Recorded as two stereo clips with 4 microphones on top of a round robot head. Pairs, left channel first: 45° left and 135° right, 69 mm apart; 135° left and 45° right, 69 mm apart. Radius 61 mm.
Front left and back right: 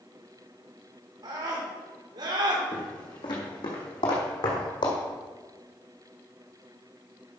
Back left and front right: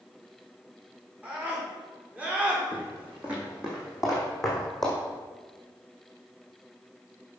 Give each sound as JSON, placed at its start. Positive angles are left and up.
{"t": 1.2, "sound": "a scream", "azimuth_deg": -115, "distance_m": 5.0}
{"t": 2.7, "sound": "footsteps", "azimuth_deg": 20, "distance_m": 3.5}